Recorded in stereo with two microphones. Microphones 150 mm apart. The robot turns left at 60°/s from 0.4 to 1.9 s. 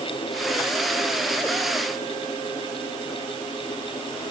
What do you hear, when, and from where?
Only background noise.